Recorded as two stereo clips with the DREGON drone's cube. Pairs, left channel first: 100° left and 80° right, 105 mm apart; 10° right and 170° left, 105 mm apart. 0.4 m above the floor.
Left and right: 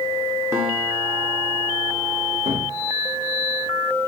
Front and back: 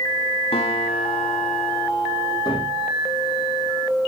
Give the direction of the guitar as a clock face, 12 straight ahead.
12 o'clock.